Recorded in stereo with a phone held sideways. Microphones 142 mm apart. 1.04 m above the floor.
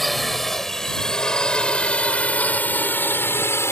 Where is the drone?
Centre (ahead or behind); by 3.7 s 15° left (ahead or behind).